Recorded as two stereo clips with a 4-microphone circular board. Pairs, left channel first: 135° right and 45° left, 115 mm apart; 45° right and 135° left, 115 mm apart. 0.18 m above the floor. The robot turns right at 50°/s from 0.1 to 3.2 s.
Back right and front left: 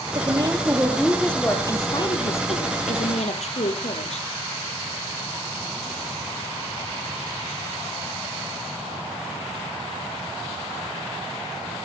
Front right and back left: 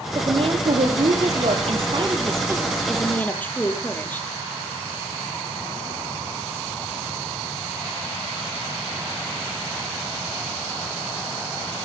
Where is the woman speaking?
85° left, 4.5 m; by 4.3 s 120° right, 4.5 m.